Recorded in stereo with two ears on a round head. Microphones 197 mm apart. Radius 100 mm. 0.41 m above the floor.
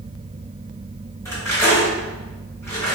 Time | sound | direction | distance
1.2 | cutlery clinking | 15° left (ahead or behind) | 1.5 m